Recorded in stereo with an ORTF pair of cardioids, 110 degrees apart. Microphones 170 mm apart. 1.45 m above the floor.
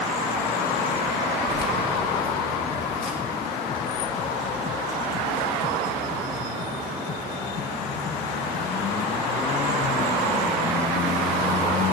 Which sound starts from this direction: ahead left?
Keys jangling, at 1.5 s.